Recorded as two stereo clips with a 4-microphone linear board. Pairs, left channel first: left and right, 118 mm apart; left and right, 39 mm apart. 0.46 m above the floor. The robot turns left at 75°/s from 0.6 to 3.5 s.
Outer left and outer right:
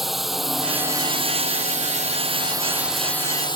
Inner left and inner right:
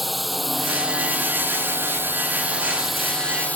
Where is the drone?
Straight ahead; by 3.6 s 140° left.